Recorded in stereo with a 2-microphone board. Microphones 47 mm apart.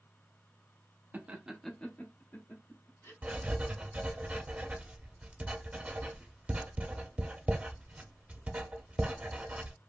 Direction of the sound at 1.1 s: 40° right (ahead or behind).